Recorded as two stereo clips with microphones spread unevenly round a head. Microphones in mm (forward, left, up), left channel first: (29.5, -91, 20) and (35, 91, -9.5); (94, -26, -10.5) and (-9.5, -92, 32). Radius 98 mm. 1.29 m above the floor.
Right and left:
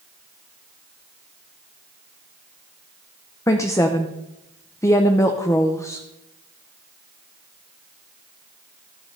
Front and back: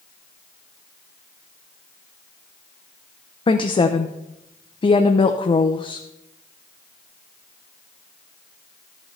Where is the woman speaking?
15° right, 0.8 m.